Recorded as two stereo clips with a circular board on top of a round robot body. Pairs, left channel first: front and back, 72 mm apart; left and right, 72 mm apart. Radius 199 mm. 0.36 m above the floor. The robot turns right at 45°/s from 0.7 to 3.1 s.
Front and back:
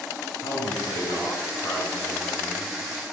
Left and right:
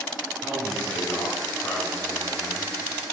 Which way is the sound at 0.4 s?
15° left.